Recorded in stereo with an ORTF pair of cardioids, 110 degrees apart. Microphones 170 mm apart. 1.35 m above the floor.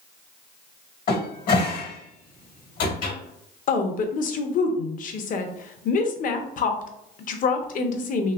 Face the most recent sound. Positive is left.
turn(degrees=55)